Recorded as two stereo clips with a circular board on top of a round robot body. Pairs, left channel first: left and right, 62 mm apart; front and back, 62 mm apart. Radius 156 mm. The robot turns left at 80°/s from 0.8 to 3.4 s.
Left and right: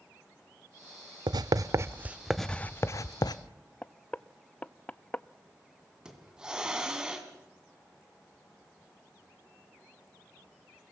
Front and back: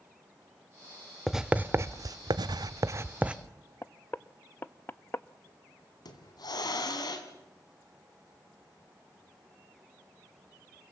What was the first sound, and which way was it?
Writing, 90° right.